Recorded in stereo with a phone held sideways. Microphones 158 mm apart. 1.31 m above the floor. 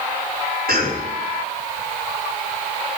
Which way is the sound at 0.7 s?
70° right (ahead or behind).